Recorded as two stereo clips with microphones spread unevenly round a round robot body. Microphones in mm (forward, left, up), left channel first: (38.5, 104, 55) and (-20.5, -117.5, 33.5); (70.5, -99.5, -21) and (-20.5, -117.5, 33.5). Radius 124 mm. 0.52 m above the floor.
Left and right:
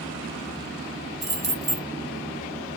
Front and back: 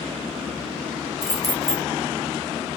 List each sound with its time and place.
1.2 s keys jangling: 95° right, 1.0 m